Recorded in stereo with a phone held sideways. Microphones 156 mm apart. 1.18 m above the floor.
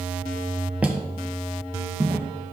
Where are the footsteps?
10° right (ahead or behind), 1.3 m; by 2.3 s 15° right (ahead or behind), 2 m.